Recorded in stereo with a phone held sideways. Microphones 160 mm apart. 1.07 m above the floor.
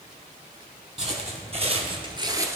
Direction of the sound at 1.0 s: 40° right (ahead or behind).